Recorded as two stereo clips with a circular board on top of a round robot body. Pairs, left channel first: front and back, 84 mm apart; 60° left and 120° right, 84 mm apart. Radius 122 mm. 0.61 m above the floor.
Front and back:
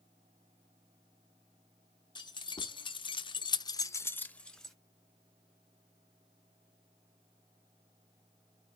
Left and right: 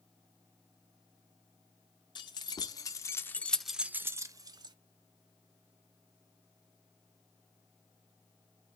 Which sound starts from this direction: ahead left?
Keys jangling, at 2.1 s.